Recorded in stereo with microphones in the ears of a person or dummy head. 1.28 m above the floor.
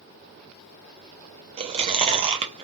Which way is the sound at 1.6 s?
25° right (ahead or behind).